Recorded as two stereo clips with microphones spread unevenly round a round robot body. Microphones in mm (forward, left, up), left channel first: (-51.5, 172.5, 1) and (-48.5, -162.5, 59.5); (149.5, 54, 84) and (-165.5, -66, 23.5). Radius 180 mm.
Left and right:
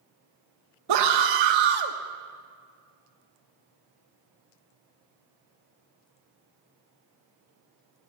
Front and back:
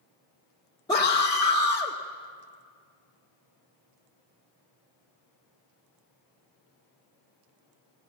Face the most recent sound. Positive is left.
turn(degrees=-60)